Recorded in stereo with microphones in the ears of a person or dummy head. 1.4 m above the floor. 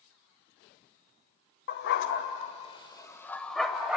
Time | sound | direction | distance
1.7 | a dog barking | 60° left (ahead or behind) | 1.9 m